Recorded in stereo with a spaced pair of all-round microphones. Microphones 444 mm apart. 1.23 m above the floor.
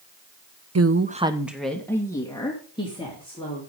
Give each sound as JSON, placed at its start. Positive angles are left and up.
{"t": 0.8, "sound": "a woman speaking", "side_deg": -35, "distance_m": 0.6}